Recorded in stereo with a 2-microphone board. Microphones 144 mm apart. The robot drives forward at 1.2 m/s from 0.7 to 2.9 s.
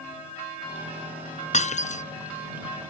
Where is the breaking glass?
50° left (ahead or behind); by 2.0 s 55° left (ahead or behind).